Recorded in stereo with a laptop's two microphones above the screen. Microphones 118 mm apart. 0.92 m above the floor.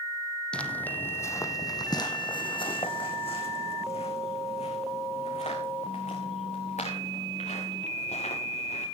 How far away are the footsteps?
About 2 m.